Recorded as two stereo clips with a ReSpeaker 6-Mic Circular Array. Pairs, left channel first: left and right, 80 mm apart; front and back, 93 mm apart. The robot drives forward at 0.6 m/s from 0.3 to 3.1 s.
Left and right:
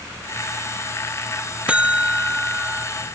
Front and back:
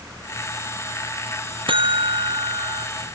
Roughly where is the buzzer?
Behind.